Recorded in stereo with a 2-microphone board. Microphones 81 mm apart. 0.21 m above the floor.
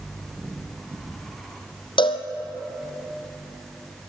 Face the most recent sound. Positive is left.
turn(degrees=70)  # may be behind; listen again after turning